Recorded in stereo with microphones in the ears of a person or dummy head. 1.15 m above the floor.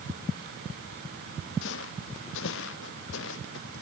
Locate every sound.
1.6 s footsteps: 70° left (ahead or behind); by 3.8 s 75° left (ahead or behind)